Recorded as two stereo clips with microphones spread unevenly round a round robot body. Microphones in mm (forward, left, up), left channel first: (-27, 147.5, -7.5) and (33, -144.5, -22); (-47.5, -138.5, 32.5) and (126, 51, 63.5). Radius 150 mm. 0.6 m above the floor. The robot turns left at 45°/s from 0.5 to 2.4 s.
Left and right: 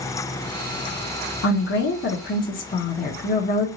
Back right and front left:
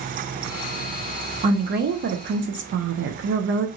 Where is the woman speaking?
100° left, 0.6 m; by 3.7 s 55° left, 0.6 m.